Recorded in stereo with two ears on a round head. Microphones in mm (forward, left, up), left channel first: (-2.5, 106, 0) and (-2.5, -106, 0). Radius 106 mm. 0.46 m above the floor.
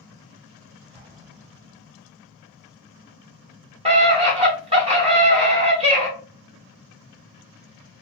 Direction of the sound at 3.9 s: 25° right (ahead or behind).